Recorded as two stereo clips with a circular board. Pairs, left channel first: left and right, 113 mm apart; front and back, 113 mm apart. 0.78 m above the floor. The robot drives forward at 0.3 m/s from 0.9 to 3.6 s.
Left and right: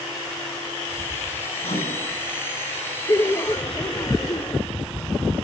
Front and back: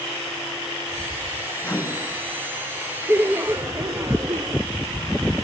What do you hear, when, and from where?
1.6 s a microwave: 75° left, 7.5 m
3.1 s laughter: 115° left, 0.7 m; by 4.6 s 130° left, 0.7 m